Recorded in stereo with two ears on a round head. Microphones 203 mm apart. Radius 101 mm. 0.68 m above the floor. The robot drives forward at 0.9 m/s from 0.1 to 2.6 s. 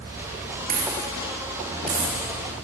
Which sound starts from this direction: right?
A dropped coin, at 0.7 s.